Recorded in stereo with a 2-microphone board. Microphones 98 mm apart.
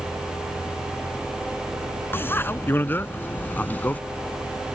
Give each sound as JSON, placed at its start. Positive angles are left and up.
{"t": 2.1, "sound": "a bicycle bell", "side_deg": 20}